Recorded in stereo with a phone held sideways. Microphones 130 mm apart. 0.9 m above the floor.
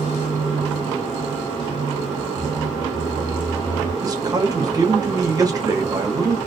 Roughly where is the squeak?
Left.